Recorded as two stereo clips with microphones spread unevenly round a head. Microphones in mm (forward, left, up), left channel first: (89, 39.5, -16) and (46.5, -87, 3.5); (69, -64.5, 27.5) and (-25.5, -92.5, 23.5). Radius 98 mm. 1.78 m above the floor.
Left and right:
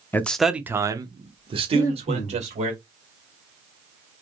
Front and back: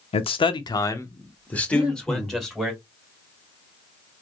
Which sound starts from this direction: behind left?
Breathing, at 1.7 s.